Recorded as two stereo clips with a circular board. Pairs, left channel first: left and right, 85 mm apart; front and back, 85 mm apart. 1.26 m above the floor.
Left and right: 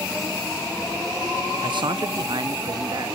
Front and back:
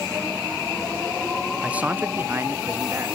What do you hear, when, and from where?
1.6 s a man speaking: 100° right, 0.6 m; by 3.2 s 125° right, 1.7 m